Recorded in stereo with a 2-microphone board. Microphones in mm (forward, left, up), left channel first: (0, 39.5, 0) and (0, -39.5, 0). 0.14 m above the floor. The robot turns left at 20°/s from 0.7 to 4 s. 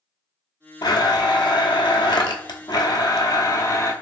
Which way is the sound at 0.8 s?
105° left.